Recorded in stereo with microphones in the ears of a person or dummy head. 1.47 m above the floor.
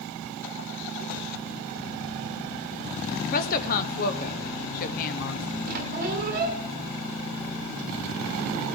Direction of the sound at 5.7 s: 45° right (ahead or behind).